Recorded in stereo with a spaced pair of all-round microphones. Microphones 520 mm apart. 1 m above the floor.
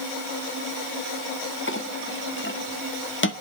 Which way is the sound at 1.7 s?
20° left (ahead or behind).